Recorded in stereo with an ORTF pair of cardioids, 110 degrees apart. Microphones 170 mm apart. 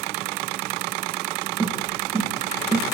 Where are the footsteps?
20° right, 9.5 m.